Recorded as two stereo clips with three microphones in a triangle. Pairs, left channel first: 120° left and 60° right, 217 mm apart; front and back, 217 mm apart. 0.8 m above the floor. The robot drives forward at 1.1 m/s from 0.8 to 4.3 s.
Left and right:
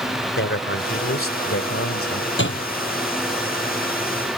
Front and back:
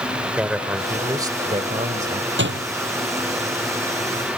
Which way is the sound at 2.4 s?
150° left.